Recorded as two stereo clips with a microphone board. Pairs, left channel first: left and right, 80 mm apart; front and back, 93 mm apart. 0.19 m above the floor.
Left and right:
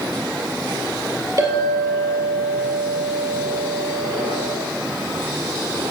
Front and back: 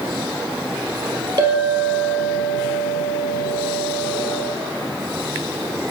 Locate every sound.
1.4 s a clink: 130° right, 2.5 m